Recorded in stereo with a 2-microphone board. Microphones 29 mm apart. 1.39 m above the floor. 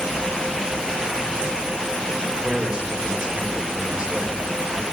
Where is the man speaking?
40° right (ahead or behind), 5.5 m.